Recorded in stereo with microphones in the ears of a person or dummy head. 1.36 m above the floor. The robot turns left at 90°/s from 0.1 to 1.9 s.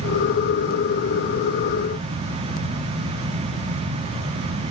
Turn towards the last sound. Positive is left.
No sound to turn to.